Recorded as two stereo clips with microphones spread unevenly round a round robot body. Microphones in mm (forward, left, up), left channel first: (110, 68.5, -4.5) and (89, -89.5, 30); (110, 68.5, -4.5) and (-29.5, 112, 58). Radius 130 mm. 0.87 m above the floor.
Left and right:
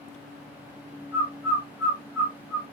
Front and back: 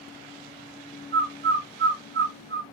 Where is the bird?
175° left, 1.3 m.